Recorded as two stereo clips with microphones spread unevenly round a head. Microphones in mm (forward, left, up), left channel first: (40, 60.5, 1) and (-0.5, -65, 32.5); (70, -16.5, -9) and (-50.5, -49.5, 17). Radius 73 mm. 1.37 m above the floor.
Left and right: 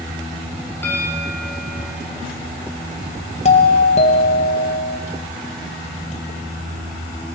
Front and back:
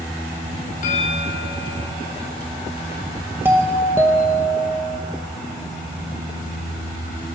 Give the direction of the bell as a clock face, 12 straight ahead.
12 o'clock.